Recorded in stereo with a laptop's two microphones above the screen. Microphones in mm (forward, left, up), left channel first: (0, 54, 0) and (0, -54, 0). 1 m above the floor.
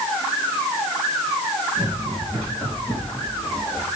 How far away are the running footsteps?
About 5 m.